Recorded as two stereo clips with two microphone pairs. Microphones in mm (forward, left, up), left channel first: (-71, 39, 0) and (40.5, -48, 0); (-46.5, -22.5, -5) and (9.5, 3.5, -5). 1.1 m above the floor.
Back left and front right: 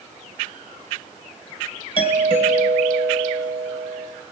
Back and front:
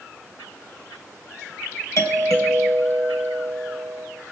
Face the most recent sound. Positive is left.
turn(degrees=-170)